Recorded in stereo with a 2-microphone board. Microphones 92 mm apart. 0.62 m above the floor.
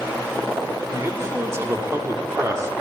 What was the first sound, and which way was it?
A man speaking, 30° right (ahead or behind).